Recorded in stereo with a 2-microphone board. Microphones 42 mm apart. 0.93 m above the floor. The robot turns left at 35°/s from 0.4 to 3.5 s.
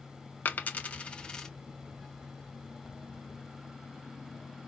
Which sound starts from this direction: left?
A dropped coin, at 0.5 s.